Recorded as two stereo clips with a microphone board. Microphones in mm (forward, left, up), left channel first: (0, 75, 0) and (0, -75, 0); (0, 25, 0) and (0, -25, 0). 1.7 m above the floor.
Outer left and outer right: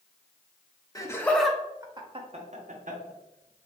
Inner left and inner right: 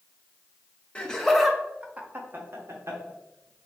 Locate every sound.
0.9 s laughter: 25° left (ahead or behind), 1.0 m; by 3.7 s 75° right (ahead or behind), 1.8 m